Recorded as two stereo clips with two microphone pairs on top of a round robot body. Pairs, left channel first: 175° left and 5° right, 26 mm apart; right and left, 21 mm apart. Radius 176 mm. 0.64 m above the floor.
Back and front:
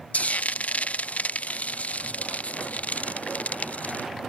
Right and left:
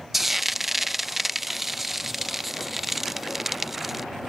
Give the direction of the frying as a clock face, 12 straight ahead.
6 o'clock.